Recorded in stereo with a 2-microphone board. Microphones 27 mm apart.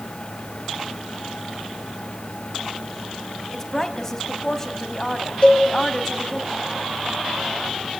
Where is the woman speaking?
20° left (ahead or behind), 3 m.